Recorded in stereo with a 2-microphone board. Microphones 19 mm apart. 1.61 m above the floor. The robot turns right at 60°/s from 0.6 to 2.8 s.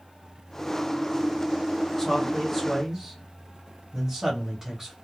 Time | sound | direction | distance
2.0 | a man speaking | 25° left (ahead or behind) | 1.1 m